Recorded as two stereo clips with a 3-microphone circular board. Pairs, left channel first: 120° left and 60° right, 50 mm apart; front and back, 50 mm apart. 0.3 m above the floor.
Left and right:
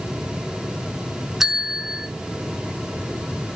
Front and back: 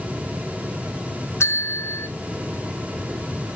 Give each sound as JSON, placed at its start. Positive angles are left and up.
{"t": 1.4, "sound": "a bell", "azimuth_deg": 25, "distance_m": 0.5}